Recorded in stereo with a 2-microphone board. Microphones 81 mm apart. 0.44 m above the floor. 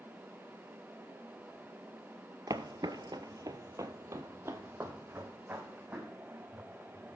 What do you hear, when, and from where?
2.5 s footsteps: 50° right (ahead or behind), 0.7 m; by 7.2 s 15° right (ahead or behind), 2.5 m